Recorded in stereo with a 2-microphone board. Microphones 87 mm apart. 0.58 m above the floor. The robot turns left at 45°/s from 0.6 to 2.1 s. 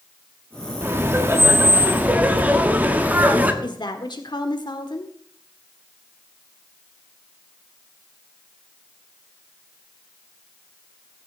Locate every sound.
0.8 s laughter: 25° right (ahead or behind), 1.3 m; by 3.5 s 20° right (ahead or behind), 1.3 m
3.6 s a woman speaking: 60° left (ahead or behind), 1.5 m